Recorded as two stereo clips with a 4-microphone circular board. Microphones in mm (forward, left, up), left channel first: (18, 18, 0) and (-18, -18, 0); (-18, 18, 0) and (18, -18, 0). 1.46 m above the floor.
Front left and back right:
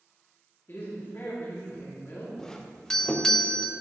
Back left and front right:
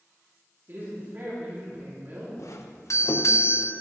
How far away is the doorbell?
About 0.8 m.